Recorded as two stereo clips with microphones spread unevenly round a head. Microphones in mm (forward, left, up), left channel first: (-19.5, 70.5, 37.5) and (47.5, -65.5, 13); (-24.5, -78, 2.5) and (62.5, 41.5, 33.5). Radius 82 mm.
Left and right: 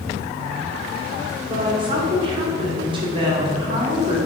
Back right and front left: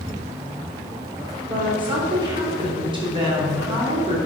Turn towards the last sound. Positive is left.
turn(degrees=-10)